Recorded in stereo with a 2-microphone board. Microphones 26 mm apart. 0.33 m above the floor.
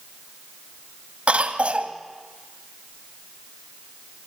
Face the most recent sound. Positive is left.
turn(degrees=-50)  # may be behind; listen again after turning